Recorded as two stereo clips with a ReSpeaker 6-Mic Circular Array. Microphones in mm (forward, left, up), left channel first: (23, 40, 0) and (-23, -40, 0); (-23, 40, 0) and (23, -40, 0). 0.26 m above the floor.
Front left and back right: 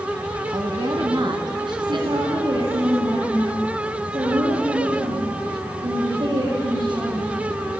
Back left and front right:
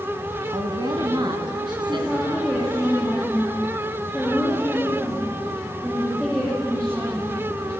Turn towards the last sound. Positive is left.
turn(degrees=-140)